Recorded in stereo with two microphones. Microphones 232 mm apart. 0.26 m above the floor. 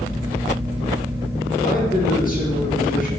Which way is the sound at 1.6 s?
40° left (ahead or behind).